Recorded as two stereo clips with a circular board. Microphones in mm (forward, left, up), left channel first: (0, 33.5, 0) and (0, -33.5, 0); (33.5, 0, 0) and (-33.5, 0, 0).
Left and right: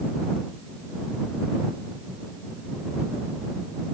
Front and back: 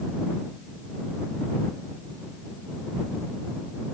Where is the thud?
No thud in this recording.